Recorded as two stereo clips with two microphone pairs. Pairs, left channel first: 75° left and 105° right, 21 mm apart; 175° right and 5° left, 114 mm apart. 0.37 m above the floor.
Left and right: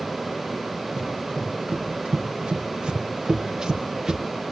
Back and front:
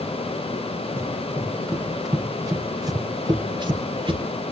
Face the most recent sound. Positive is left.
turn(degrees=-40)